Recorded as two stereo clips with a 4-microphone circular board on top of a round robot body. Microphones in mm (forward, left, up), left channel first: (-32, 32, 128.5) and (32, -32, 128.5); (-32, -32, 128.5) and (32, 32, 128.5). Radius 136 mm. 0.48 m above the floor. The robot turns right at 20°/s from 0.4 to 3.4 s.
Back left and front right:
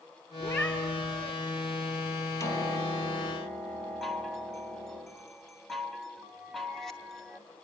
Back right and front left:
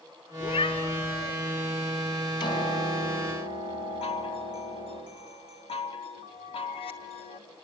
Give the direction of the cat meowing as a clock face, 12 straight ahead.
5 o'clock.